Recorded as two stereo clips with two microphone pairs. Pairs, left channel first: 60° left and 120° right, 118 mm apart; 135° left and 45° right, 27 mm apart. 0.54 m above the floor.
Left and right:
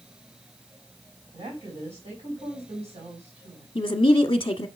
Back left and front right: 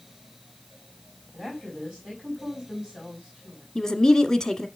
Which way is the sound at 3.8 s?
90° left.